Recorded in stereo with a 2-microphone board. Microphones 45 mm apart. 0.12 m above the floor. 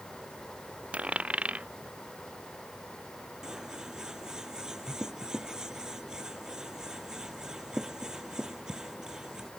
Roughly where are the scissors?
Centre.